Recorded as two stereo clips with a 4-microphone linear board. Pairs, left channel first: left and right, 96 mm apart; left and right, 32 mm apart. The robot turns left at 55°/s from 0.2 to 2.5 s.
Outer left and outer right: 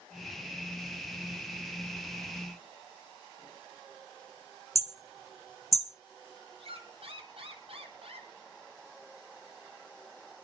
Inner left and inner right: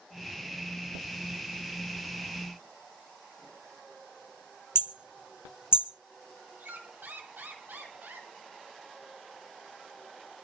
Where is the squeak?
80° right, 2.5 m.